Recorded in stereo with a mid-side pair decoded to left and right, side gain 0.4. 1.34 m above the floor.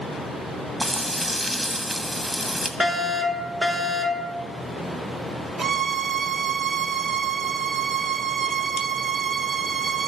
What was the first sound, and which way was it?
Frying, 15° right.